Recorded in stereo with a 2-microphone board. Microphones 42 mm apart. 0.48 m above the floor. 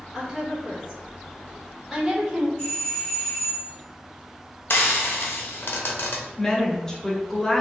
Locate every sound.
0.1 s a woman speaking: 5° right (ahead or behind), 1.5 m
2.6 s a doorbell: 45° left (ahead or behind), 1.7 m
4.7 s frying: 75° left (ahead or behind), 0.6 m
6.4 s a woman speaking: 15° left (ahead or behind), 0.9 m